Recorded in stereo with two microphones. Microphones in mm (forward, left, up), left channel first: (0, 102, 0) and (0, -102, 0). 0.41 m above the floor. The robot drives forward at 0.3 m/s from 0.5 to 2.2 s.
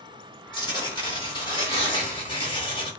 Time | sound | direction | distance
0.5 | tearing paper | 20° left (ahead or behind) | 1.7 m